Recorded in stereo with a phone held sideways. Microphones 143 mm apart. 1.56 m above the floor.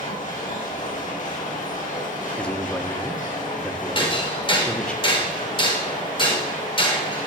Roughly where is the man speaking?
Centre.